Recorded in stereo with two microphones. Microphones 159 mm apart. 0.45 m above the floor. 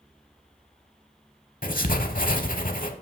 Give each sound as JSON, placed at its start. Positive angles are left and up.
{"t": 1.6, "sound": "writing", "side_deg": 60, "distance_m": 0.8}